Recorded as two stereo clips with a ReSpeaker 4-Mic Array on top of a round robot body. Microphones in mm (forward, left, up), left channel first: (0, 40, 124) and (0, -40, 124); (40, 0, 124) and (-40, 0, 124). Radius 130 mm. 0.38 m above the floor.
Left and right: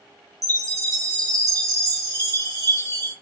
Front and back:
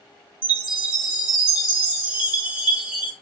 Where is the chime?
110° right, 2 m.